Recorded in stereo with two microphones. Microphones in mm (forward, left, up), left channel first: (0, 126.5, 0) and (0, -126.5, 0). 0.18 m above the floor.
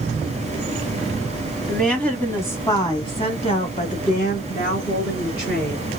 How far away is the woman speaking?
About 1.6 m.